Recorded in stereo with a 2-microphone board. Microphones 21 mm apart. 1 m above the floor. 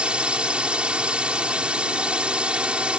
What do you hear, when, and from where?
0.0 s a drone: 60° right (ahead or behind)